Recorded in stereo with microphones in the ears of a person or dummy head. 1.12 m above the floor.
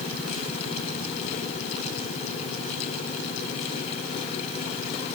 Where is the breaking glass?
No breaking glass in this recording.